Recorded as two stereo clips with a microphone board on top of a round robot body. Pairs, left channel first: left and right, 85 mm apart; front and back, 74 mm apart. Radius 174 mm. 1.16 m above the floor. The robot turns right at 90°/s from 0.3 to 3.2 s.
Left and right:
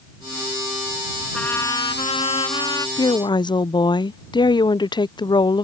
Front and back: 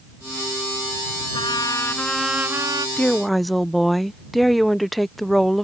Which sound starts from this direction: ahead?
A trumpet, at 1.3 s.